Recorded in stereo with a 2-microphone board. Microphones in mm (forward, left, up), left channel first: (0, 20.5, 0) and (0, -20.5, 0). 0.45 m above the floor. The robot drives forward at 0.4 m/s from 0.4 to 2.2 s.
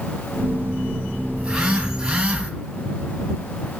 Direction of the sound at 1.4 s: 20° right (ahead or behind).